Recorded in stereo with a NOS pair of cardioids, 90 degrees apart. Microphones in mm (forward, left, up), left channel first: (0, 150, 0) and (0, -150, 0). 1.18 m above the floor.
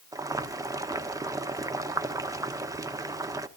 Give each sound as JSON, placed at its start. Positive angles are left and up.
{"t": 0.1, "sound": "boiling", "azimuth_deg": -10, "distance_m": 1.0}